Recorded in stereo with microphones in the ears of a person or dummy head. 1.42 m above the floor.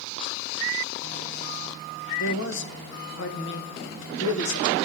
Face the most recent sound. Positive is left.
turn(degrees=75)  # may be behind; listen again after turning